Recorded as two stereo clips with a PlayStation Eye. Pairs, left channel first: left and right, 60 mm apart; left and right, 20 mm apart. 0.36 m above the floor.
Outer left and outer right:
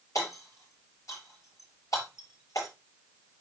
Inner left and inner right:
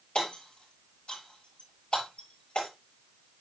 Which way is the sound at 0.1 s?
75° left (ahead or behind).